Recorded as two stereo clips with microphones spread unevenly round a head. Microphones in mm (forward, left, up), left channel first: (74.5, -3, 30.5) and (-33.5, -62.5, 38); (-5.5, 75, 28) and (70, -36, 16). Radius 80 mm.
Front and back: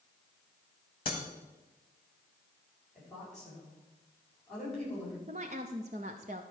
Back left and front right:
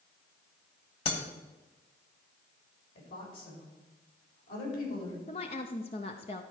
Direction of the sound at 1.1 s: 90° left.